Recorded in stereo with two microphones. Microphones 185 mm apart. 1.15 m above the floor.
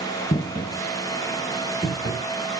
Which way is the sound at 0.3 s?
45° left (ahead or behind).